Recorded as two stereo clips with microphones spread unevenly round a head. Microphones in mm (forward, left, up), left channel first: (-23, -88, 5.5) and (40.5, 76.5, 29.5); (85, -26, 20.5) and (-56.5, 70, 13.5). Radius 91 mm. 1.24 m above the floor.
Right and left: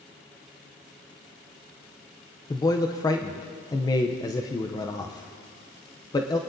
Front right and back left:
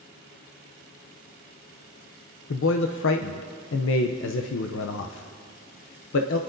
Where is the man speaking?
45° right, 0.5 m.